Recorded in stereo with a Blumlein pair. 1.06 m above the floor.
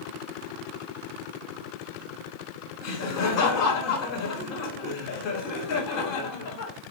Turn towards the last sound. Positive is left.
turn(degrees=40)